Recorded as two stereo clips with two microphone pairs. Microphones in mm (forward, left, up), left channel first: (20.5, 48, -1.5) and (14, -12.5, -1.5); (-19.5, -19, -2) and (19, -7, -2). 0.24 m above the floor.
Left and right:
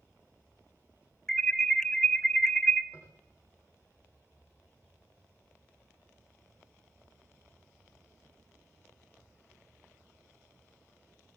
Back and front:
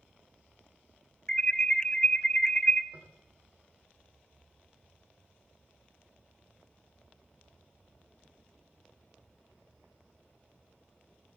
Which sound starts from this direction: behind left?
An alarm, at 1.3 s.